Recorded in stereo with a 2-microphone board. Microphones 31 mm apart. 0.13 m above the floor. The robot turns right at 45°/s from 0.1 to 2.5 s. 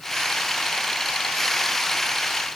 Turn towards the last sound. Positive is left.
No sound to turn to.